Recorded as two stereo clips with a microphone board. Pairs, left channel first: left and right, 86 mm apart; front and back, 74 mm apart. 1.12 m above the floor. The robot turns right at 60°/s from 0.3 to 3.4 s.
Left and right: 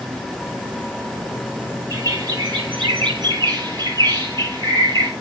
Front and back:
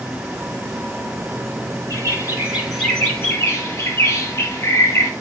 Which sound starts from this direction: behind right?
A bird, at 1.9 s.